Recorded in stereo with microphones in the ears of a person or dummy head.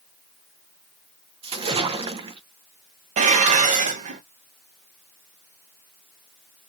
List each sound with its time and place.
1.4 s a splash: 30° right (ahead or behind), 0.6 m
3.2 s dishes clattering: 40° right (ahead or behind), 0.8 m